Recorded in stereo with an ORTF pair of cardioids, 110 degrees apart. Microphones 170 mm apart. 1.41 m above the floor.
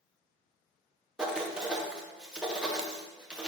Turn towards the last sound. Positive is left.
turn(degrees=-5)